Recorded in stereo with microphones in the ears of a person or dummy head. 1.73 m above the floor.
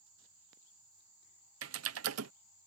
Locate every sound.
1.6 s typing on a keyboard: 85° right